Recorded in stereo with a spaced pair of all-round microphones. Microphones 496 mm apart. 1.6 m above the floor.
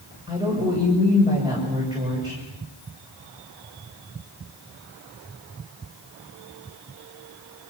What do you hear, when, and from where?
0.3 s a woman speaking: 10° right (ahead or behind), 7 m